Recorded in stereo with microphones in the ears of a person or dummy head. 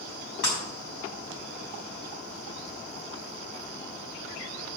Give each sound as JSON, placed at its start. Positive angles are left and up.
{"t": 0.4, "sound": "breaking glass", "side_deg": 80, "distance_m": 4.5}